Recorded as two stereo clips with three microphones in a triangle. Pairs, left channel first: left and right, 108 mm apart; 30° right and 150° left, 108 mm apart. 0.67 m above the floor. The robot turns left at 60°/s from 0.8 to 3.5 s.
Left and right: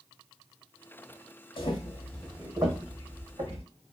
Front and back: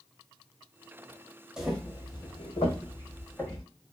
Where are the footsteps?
70° left, 1.1 m; by 3.6 s 115° right, 1.7 m.